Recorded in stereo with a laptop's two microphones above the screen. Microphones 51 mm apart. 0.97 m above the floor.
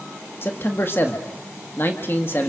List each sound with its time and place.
0.4 s a man speaking: 45° left (ahead or behind), 1.6 m